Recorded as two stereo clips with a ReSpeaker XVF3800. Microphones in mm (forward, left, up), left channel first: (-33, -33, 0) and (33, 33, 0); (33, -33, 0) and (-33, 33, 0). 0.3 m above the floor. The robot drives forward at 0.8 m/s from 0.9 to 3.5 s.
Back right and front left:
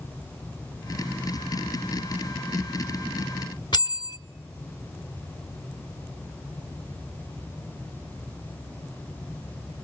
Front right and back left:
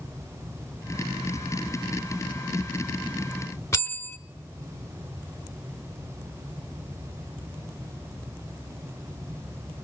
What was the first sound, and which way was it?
A bell, 105° right.